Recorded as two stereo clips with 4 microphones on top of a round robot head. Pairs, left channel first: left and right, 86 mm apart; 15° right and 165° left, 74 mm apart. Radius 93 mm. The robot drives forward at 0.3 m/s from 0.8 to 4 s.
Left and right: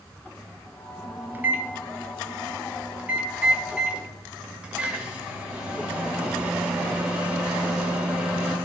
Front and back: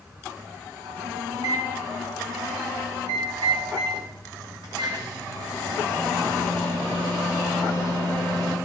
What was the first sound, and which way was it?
A microwave, 160° right.